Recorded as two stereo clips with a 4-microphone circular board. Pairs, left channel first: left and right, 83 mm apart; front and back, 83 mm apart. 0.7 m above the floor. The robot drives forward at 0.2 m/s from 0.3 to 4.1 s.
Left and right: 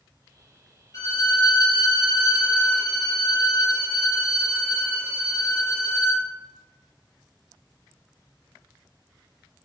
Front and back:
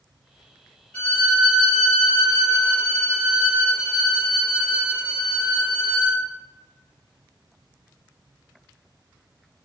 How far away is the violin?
About 1.1 m.